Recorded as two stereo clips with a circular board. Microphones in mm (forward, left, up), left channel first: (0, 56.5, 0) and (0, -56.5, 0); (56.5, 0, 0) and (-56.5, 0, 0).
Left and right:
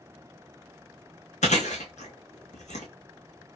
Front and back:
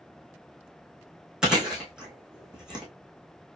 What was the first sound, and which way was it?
Chewing, 95° left.